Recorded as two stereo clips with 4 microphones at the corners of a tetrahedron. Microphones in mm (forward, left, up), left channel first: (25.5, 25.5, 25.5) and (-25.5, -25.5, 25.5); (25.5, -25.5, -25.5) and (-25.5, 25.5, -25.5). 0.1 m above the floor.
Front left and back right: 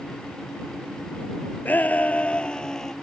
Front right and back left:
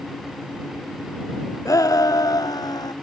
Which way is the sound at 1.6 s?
15° right.